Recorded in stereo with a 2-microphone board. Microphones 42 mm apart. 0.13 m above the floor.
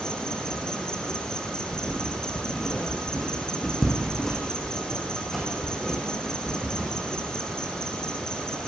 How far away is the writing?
About 8 m.